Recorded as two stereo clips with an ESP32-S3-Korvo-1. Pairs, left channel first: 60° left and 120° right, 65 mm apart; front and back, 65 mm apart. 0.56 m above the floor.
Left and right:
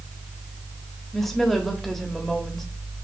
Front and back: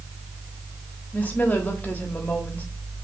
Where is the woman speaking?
25° right, 1.2 m.